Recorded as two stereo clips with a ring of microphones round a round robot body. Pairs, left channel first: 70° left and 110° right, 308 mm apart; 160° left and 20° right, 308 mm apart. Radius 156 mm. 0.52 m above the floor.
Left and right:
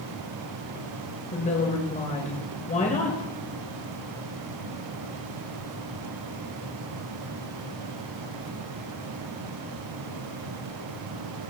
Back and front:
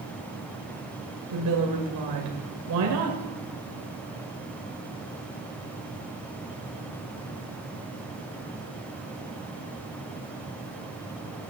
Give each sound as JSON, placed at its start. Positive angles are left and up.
{"t": 1.3, "sound": "a woman speaking", "azimuth_deg": 0, "distance_m": 2.0}